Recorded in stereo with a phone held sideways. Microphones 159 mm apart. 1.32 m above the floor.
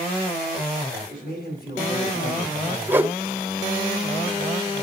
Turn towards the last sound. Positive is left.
turn(degrees=-10)  # may be behind; listen again after turning